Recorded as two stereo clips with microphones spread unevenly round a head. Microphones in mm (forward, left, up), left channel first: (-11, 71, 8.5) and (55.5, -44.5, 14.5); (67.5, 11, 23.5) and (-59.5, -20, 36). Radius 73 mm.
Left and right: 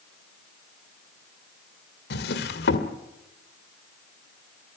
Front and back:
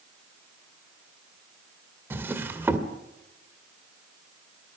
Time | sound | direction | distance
2.1 | a drawer | 120° left | 1.7 m